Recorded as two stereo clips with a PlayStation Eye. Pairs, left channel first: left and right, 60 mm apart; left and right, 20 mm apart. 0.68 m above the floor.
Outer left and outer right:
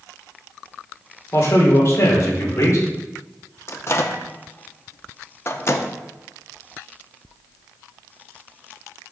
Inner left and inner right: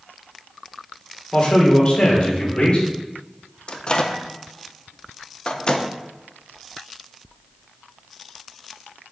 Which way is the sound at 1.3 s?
60° left (ahead or behind).